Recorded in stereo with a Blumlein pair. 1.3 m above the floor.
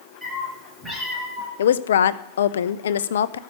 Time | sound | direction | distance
0.2 | a cat meowing | straight ahead | 8 m
1.6 | a woman speaking | 65° left | 0.6 m